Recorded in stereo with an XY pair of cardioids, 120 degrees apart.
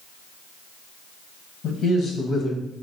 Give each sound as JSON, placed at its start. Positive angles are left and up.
{"t": 1.6, "sound": "a man speaking", "azimuth_deg": 55, "distance_m": 1.1}